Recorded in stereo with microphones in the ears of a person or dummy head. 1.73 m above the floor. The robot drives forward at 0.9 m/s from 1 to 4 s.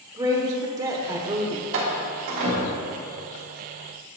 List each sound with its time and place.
0.2 s a woman speaking: 15° right (ahead or behind), 1.1 m; by 1.6 s 25° right (ahead or behind), 0.6 m
1.7 s a door slam: 55° right (ahead or behind), 1.5 m; by 3.0 s 40° right (ahead or behind), 1.9 m